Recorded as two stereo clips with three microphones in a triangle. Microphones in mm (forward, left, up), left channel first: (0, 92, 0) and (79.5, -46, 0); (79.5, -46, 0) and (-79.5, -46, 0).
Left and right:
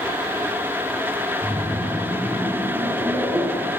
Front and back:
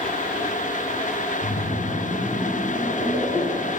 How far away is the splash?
About 3 m.